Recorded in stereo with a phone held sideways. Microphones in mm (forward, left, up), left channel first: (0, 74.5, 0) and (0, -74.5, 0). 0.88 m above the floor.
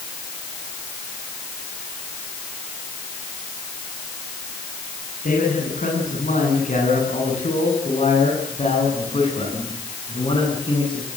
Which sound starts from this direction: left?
A man speaking, at 5.2 s.